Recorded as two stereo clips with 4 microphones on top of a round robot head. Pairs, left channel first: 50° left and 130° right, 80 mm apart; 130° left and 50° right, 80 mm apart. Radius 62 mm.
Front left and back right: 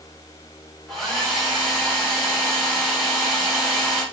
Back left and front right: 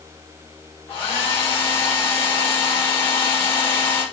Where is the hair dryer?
140° left, 2.5 m.